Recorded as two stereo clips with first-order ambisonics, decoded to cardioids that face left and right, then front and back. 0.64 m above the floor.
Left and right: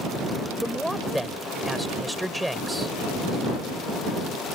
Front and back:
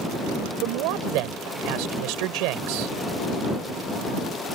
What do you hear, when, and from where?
0.6 s a man speaking: straight behind